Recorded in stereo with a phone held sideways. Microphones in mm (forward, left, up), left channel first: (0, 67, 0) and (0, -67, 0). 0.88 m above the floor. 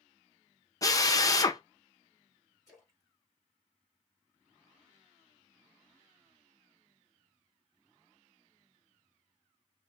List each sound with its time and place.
0.8 s a drill: 25° left (ahead or behind), 0.6 m
2.7 s a splash: 25° left (ahead or behind), 2.5 m